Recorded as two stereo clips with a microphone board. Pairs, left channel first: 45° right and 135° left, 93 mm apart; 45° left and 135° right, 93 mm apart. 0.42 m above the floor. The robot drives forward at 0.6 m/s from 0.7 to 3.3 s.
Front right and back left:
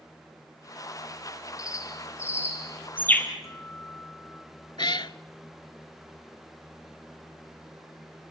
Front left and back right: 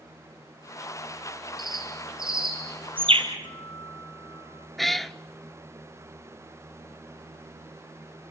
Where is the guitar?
10° left, 4.5 m.